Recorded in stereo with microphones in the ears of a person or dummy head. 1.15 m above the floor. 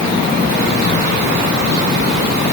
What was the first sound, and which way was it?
Only background noise.